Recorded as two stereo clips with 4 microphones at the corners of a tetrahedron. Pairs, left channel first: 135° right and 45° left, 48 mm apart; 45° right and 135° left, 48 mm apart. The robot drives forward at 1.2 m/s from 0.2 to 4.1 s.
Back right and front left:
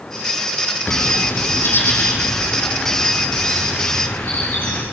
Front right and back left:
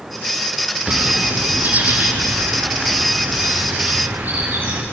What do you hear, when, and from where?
0.9 s a bird: 170° right, 2 m; by 4.8 s 175° right, 6 m